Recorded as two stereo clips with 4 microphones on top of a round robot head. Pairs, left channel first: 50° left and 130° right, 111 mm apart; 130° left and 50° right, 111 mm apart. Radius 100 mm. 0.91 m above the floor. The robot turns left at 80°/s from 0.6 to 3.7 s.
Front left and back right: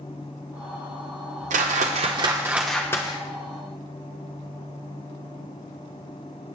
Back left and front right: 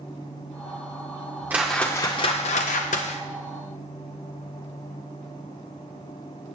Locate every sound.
1.5 s a whoosh: 125° right, 1.0 m; by 3.2 s 100° left, 1.0 m